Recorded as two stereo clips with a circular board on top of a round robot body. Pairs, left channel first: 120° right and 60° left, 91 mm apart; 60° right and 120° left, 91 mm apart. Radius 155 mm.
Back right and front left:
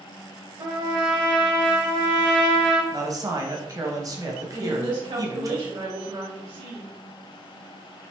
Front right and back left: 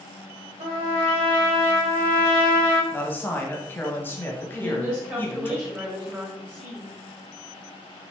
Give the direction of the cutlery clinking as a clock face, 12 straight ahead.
No cutlery clinking in this recording.